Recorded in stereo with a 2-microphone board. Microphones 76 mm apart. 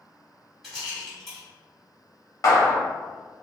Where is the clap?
45° left (ahead or behind), 0.9 m.